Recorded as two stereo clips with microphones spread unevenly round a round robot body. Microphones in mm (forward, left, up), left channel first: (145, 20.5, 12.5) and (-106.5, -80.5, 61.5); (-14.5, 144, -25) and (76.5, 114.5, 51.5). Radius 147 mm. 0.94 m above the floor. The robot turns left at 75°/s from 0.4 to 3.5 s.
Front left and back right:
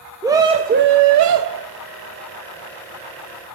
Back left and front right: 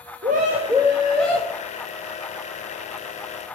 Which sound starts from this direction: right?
A scream, at 0.2 s.